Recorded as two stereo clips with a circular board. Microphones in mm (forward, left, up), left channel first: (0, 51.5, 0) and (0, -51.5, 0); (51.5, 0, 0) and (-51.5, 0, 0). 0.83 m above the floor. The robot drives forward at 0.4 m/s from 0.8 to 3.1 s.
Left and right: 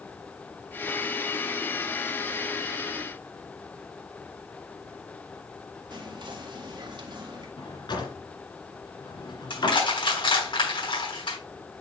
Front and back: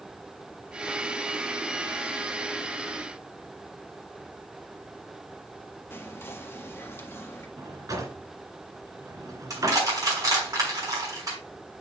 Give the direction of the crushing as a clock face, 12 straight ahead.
8 o'clock.